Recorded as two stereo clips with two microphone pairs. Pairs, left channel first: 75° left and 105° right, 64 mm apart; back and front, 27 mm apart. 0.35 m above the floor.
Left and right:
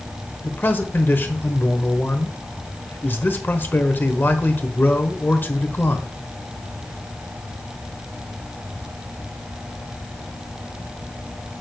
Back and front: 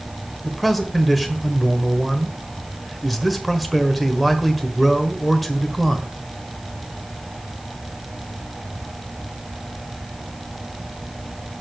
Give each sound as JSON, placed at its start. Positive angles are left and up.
{"t": 0.4, "sound": "a man speaking", "azimuth_deg": 95, "distance_m": 1.1}